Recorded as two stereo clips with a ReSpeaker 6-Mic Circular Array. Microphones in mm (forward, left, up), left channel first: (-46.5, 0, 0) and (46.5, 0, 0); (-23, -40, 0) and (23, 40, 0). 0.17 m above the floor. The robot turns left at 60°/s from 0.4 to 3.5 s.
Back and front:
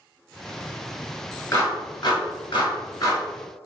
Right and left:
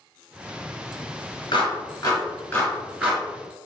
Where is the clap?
130° right, 1.5 m; by 3.2 s 130° left, 1.5 m.